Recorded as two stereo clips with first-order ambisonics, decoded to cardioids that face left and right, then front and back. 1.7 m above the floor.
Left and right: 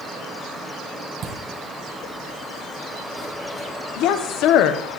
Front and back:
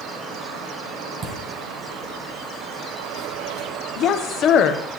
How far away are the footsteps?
About 2.5 m.